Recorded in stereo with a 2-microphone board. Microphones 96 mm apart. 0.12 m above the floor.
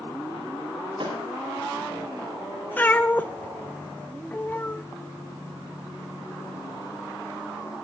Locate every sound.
1.0 s a thud: 60° right (ahead or behind), 8 m
2.8 s a cat meowing: 20° left (ahead or behind), 0.8 m